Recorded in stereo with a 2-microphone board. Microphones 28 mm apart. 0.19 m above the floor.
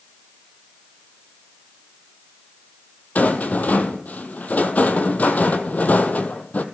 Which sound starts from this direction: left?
A rattle, at 3.1 s.